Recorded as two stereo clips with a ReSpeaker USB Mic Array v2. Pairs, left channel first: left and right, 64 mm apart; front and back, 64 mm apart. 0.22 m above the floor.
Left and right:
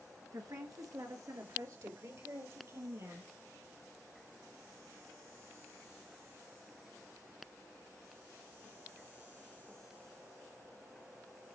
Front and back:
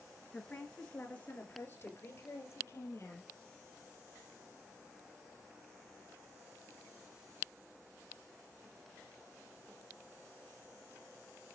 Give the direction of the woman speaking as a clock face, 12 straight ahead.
3 o'clock.